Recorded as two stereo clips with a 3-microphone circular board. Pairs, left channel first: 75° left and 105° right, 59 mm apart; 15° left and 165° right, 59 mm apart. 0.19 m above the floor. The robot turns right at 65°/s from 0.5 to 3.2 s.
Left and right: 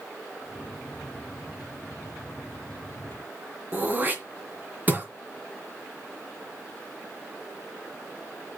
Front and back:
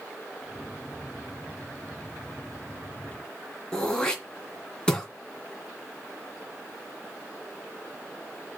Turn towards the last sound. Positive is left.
turn(degrees=-55)